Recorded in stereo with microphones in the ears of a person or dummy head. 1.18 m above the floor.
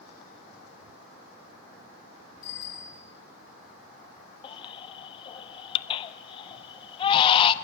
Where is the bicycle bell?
45° left (ahead or behind), 9 m.